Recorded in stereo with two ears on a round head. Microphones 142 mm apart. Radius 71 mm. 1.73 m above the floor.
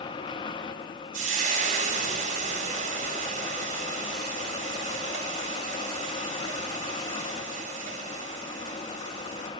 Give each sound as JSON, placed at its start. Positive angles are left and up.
{"t": 1.1, "sound": "frying", "side_deg": -55, "distance_m": 3.0}